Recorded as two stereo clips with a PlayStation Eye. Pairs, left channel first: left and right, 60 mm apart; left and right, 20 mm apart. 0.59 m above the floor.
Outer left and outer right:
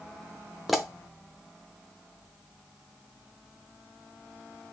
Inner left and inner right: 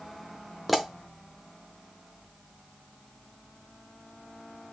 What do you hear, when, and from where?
0.7 s a pop: 5° right (ahead or behind), 0.6 m